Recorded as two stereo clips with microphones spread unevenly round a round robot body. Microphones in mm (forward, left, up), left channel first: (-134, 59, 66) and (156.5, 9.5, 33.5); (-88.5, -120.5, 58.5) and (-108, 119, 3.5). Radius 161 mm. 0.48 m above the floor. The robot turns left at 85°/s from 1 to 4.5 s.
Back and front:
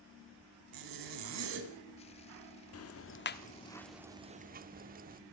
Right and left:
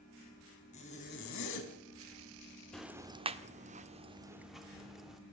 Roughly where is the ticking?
Behind.